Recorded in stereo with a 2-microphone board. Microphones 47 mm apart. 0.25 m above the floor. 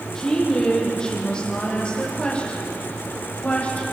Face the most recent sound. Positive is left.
turn(degrees=30)  # may be behind; listen again after turning